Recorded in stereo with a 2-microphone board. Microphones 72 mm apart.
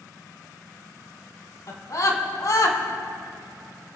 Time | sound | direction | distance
1.7 | a scream | 55° left (ahead or behind) | 3 m